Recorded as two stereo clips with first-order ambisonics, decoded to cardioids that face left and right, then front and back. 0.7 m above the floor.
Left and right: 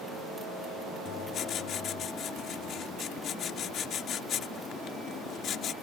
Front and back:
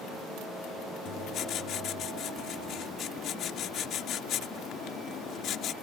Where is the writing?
45° left.